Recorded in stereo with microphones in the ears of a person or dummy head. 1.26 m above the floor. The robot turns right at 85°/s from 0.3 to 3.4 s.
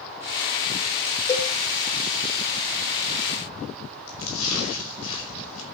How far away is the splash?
About 5.5 m.